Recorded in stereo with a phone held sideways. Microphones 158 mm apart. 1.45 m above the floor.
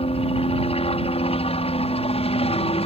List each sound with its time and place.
0.0 s a helicopter: 40° left (ahead or behind)